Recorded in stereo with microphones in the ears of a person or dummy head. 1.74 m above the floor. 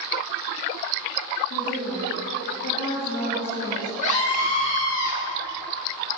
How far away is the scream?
About 4 m.